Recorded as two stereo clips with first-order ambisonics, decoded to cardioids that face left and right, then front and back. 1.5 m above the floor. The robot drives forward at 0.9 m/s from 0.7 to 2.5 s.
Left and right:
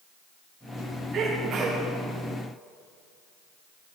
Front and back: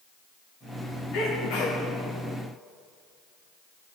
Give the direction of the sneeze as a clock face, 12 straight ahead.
1 o'clock.